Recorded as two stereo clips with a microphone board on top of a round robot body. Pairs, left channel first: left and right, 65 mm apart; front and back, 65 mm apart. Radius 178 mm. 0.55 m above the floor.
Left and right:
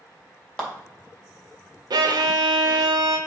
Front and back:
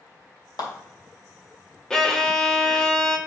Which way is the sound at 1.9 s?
80° right.